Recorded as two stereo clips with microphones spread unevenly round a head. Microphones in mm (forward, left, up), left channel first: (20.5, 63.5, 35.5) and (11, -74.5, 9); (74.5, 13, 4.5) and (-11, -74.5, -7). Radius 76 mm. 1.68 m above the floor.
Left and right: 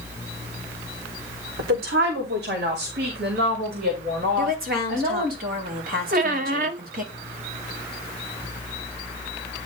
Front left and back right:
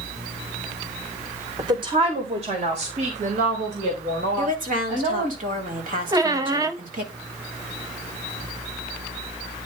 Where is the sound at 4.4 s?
125° right, 3 m.